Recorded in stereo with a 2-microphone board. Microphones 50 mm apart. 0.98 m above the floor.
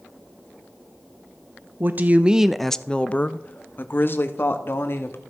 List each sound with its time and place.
1.8 s a woman speaking: 45° right (ahead or behind), 0.6 m; by 5.2 s 55° left (ahead or behind), 1.7 m